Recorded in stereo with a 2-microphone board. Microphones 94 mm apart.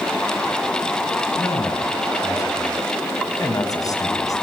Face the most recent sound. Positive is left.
turn(degrees=40)  # may be behind; listen again after turning